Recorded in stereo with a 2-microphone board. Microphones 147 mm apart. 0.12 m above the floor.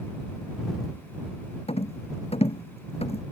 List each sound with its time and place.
1.7 s a rattle: 45° left (ahead or behind)